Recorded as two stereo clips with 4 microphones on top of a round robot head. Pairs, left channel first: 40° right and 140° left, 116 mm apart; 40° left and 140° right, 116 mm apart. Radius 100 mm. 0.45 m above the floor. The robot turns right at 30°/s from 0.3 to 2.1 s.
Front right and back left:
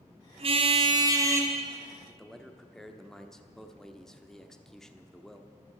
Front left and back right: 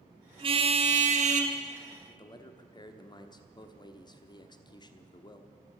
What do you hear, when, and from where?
0.4 s a car horn: 175° left, 2.5 m; by 1.5 s 150° right, 2.5 m
2.1 s a man speaking: 40° left, 1.2 m